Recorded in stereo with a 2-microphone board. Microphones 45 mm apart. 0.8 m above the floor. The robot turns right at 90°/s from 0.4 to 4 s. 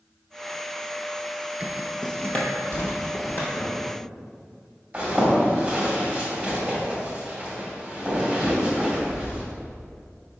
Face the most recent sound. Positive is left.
turn(degrees=-35)  # may be behind; listen again after turning